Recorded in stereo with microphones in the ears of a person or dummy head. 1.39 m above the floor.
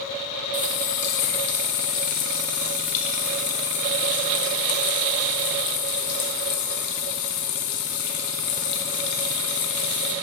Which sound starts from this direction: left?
A running tap, at 0.5 s.